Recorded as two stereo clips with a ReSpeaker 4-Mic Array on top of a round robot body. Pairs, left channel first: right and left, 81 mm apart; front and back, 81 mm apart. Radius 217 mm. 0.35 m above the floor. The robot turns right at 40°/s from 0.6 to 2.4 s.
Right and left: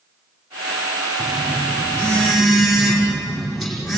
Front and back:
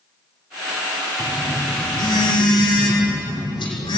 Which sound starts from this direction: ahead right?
A phone buzzing, at 1.2 s.